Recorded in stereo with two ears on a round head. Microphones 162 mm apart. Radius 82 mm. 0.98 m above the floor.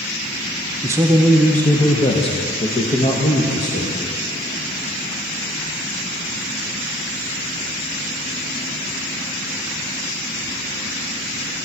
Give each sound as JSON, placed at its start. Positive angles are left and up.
{"t": 0.8, "sound": "a man speaking", "side_deg": -20, "distance_m": 0.6}